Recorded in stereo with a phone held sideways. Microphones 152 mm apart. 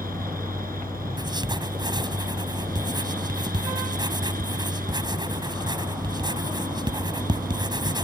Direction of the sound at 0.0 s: 70° right (ahead or behind).